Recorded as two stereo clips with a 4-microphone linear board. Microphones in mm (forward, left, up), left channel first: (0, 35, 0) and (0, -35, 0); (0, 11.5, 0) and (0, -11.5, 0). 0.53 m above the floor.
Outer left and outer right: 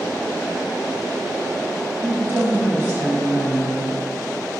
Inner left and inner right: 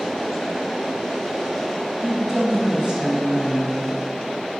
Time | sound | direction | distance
2.0 | a woman speaking | 30° right (ahead or behind) | 1.2 m